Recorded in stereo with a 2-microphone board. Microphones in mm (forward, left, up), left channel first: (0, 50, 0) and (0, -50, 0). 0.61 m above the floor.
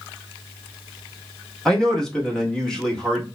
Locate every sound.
1.6 s a man speaking: 5° left (ahead or behind), 1.0 m